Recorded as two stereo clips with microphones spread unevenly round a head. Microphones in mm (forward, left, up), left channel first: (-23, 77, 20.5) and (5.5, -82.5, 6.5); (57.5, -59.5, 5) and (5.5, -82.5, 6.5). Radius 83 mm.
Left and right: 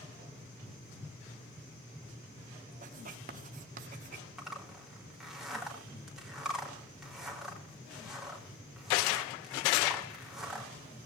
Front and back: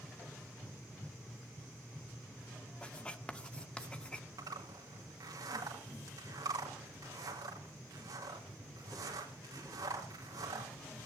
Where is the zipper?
170° right, 4 m.